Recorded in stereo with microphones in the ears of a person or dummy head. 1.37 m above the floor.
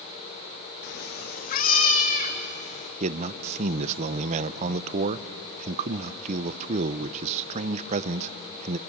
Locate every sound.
0.8 s a cat meowing: 50° left (ahead or behind), 0.8 m; by 2.9 s 35° left (ahead or behind), 2.5 m
3.0 s a man speaking: 40° right (ahead or behind), 0.6 m